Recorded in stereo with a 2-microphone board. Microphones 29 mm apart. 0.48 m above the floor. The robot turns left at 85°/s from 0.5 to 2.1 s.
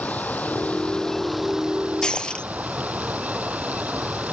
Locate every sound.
0.0 s running water: 70° left; by 4.3 s 65° right
2.0 s breaking glass: 25° left (ahead or behind); by 2.5 s 35° left (ahead or behind)